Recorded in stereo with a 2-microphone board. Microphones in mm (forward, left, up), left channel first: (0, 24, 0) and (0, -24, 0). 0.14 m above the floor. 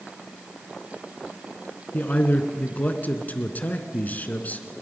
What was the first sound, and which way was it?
A man speaking, 35° left (ahead or behind).